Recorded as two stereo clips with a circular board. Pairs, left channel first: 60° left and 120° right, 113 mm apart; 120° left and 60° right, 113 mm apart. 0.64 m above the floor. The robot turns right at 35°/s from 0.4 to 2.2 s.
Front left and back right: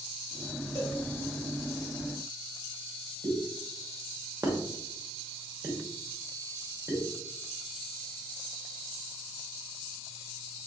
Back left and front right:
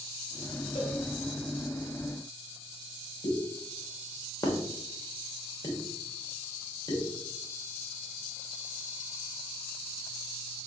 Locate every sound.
0.8 s a cowbell: 115° left, 1.5 m; by 1.0 s 125° left, 1.5 m
3.2 s a pop: 175° left, 1.0 m